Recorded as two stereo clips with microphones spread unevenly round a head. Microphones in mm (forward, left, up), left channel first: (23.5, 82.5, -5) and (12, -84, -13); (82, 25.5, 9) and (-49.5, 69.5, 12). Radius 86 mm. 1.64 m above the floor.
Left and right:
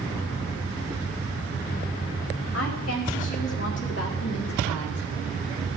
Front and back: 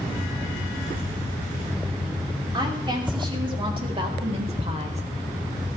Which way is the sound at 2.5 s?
105° left.